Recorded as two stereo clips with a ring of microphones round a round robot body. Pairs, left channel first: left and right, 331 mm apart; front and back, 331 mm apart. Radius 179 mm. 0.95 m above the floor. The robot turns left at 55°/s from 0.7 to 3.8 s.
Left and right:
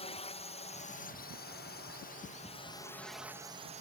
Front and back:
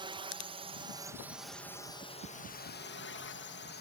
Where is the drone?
130° left; by 3.8 s 35° right.